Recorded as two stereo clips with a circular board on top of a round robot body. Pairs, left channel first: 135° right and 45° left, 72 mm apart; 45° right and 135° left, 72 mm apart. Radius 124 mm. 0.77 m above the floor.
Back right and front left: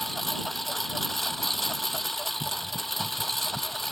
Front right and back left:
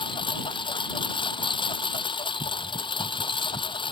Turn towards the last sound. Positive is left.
turn(degrees=-50)